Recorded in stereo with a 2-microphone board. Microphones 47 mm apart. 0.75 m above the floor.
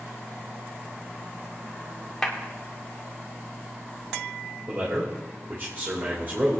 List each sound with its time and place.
2.2 s a clap: 10° left (ahead or behind), 1.6 m
4.7 s a man speaking: 45° right (ahead or behind), 2.5 m